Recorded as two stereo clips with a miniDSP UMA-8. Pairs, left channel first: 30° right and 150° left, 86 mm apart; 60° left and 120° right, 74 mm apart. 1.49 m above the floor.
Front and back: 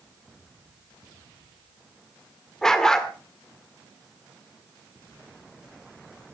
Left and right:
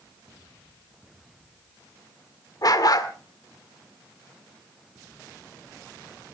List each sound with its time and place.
2.6 s a dog barking: 55° left, 1.8 m